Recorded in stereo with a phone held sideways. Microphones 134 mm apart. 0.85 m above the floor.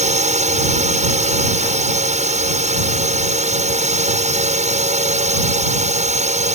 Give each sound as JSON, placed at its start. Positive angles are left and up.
{"t": 0.0, "sound": "a drone", "side_deg": -65}